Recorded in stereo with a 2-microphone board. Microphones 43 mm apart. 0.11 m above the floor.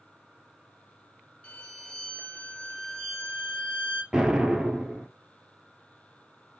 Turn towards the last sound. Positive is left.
turn(degrees=-20)  # may be behind; listen again after turning